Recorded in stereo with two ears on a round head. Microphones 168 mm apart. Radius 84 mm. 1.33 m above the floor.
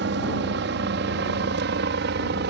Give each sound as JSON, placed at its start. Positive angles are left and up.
{"t": 0.0, "sound": "a helicopter", "side_deg": -65}